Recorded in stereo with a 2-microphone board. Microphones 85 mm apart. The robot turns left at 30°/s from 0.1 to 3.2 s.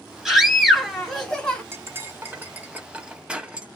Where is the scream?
5° right (ahead or behind), 1.2 m; by 1.6 s 10° left (ahead or behind), 1.2 m.